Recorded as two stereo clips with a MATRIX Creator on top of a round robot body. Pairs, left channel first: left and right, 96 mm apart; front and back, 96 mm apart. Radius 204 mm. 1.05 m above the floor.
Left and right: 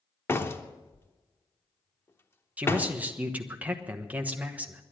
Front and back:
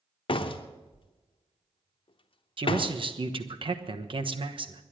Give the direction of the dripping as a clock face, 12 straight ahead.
I don't hear dripping.